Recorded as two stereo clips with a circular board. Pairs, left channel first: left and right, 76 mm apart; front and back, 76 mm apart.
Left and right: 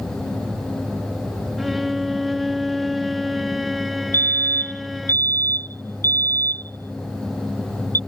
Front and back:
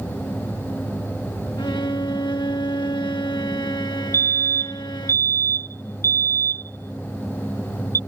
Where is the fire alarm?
40° left.